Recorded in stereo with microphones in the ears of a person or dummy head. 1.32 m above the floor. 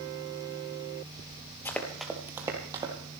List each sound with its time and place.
1.6 s running footsteps: 15° left (ahead or behind), 1.6 m; by 2.9 s 25° right (ahead or behind), 3 m